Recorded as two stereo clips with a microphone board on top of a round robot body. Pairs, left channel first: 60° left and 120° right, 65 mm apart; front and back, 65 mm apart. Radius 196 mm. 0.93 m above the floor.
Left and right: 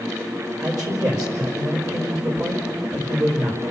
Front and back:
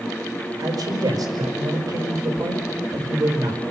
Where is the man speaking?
150° right, 4.5 m.